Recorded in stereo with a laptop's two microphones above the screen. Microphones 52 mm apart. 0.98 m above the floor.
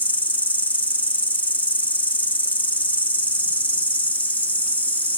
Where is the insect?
30° left (ahead or behind), 1.6 m.